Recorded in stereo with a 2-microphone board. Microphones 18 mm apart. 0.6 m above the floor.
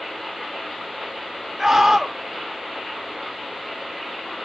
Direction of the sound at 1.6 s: 25° right (ahead or behind).